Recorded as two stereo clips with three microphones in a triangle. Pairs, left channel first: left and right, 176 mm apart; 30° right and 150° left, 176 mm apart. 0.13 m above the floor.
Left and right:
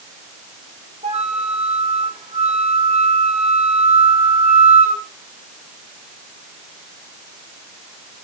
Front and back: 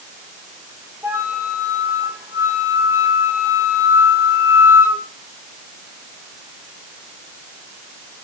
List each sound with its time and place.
1.0 s a flute: 135° right, 1.5 m